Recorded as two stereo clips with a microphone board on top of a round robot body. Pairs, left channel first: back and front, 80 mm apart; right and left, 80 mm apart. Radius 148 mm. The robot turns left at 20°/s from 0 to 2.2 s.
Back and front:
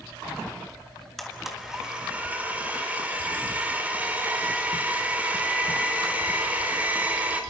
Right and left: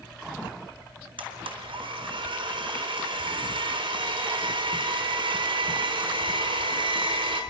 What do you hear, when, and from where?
1.2 s a blender: 90° left, 4 m; by 7.4 s 70° left, 4 m